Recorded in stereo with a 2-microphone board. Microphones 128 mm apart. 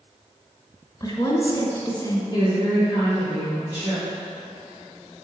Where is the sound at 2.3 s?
30° left (ahead or behind), 2.5 m.